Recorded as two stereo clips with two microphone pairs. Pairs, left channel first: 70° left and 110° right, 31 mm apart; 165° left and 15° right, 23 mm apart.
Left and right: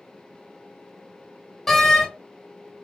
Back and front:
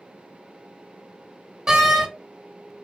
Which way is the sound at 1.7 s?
10° right.